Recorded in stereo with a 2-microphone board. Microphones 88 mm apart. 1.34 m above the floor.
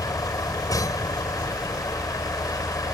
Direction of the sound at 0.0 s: 45° left (ahead or behind).